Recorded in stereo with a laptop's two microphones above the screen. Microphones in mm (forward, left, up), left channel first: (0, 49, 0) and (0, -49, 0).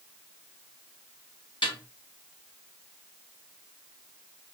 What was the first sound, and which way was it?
A snare drum, 60° left (ahead or behind).